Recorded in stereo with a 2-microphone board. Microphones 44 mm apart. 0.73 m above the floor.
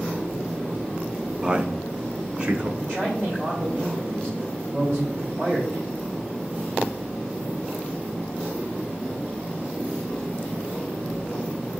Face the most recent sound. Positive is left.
turn(degrees=-40)  # may be behind; listen again after turning